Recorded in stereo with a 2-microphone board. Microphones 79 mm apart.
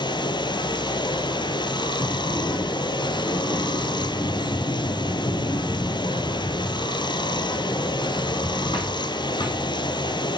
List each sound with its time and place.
0.0 s running water: 70° left (ahead or behind), 1.3 m
2.0 s a sliding door: 75° left (ahead or behind), 6 m